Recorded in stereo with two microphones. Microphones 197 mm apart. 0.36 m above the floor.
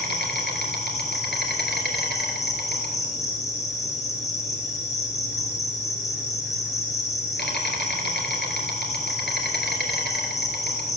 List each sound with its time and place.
0.0 s an insect: 65° left (ahead or behind), 2 m